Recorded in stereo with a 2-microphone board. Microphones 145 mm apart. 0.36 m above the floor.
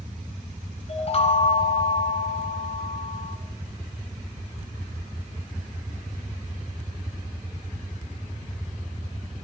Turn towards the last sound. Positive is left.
turn(degrees=45)  # may be behind; listen again after turning